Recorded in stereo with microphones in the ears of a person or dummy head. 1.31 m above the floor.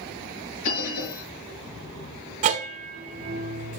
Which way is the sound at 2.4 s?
40° right (ahead or behind).